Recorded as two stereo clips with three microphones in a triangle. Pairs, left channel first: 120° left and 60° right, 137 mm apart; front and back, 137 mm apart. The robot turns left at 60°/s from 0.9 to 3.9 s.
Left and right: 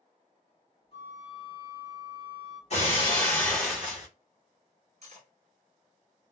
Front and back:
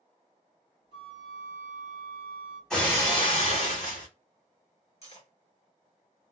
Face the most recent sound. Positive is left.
turn(degrees=-35)